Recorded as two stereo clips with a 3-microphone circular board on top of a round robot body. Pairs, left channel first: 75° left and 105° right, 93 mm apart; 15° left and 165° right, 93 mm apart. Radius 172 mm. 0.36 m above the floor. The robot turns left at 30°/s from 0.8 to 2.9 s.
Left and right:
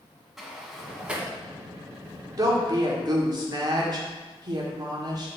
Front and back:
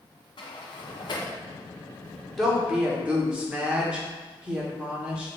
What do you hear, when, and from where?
0.4 s a sliding door: 20° right, 1.4 m; by 1.3 s 35° right, 1.4 m
2.4 s a woman speaking: 75° right, 1.8 m; by 5.3 s 90° right, 1.8 m